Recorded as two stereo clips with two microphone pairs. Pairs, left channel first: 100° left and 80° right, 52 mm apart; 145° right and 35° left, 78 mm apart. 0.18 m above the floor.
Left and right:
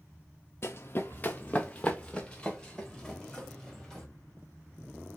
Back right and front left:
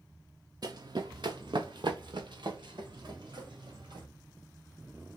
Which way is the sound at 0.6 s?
65° left.